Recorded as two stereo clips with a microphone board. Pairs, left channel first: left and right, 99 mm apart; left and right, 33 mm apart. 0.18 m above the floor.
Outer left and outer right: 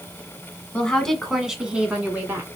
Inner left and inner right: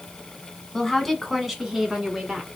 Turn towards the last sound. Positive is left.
turn(degrees=-20)  # may be behind; listen again after turning